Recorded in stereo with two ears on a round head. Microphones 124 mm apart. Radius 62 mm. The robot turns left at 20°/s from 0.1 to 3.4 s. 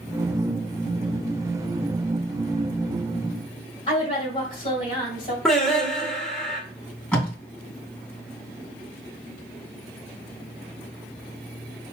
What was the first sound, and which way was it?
A woman speaking, 40° left (ahead or behind).